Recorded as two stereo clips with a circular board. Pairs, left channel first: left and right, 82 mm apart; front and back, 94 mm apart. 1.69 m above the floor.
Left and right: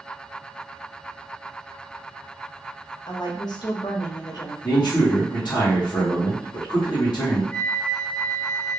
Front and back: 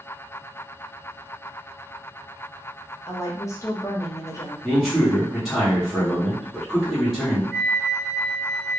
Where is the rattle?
No rattle in this recording.